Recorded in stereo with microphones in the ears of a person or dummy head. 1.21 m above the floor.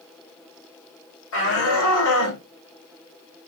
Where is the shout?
80° left, 4.5 m; by 2.4 s 75° left (ahead or behind), 4 m.